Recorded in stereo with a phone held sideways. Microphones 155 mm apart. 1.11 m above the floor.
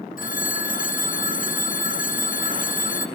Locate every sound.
0.2 s a phone ringing: 60° left (ahead or behind), 0.6 m